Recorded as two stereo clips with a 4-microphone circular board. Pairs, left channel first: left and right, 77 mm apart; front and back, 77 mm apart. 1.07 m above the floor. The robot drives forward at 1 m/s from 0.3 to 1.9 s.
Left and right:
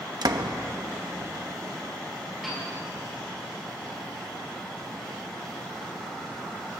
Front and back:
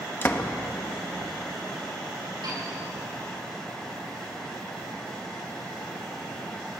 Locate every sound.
0.2 s a door slam: 60° right, 1.1 m; by 0.5 s 70° right, 1.0 m
2.4 s a piano: straight behind, 8 m